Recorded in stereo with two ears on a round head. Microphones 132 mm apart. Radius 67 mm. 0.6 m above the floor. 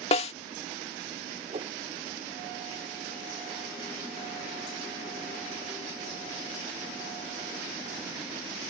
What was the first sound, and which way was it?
A snare drum, 45° left (ahead or behind).